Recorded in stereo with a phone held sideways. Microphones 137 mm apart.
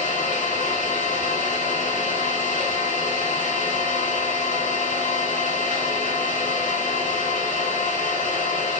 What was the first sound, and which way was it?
An engine running, 80° left.